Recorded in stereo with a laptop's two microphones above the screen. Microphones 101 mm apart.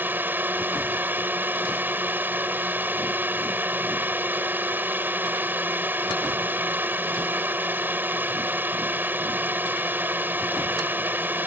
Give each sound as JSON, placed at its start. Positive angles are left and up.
{"t": 0.0, "sound": "a drone", "side_deg": -20}